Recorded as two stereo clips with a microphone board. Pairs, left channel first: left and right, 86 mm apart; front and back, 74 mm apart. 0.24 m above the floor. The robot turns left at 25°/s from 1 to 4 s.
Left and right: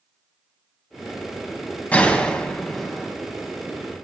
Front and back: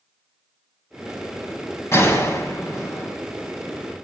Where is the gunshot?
25° left, 1.4 m; by 3.1 s 5° right, 1.4 m.